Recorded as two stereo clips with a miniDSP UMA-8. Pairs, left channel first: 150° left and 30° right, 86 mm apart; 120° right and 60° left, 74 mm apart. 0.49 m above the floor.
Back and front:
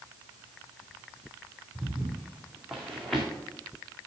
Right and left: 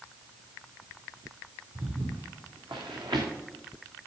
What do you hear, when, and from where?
1.8 s footsteps: 45° left, 2 m; by 3.3 s 60° left, 3 m